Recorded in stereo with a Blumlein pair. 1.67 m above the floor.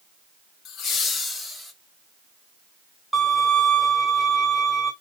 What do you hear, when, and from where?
0.7 s laughter: 35° left, 1.1 m; by 1.7 s 5° left, 1.4 m
3.1 s a violin: 5° right, 1.2 m